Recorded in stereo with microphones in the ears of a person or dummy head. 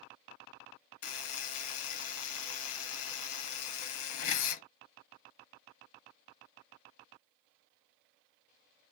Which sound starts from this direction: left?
A buzzer, at 1.0 s.